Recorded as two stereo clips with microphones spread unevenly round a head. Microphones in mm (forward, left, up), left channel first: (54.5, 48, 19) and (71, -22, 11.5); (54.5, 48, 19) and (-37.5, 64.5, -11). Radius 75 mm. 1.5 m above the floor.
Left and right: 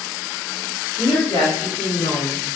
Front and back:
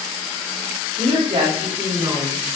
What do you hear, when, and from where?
1.0 s a woman speaking: 160° left, 4 m; by 2.4 s 155° left, 5.5 m